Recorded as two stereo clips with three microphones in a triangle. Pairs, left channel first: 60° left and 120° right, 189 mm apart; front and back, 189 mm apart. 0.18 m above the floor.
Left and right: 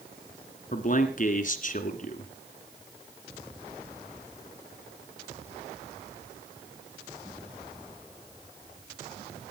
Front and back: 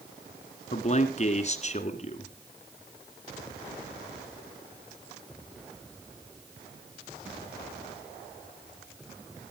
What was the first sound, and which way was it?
A man speaking, 35° left.